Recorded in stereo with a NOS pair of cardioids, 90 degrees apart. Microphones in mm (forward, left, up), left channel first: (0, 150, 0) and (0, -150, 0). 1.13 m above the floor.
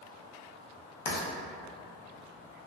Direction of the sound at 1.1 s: 70° left.